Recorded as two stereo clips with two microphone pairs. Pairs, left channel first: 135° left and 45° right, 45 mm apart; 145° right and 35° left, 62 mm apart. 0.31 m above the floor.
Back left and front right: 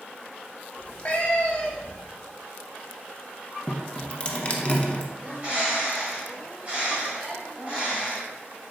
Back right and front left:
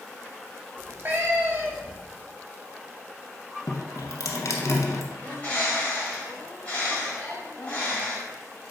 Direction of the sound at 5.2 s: 85° right.